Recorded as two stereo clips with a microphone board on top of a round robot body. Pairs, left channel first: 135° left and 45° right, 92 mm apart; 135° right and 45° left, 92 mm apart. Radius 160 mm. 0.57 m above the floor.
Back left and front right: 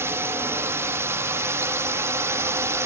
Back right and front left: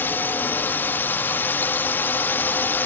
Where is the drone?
85° right.